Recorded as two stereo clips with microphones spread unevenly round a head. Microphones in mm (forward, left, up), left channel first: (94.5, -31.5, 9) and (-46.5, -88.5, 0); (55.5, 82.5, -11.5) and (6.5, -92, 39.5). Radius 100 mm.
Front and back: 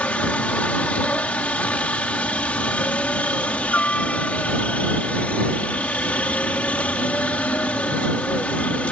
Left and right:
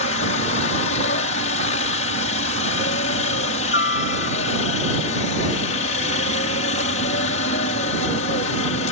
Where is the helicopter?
105° left.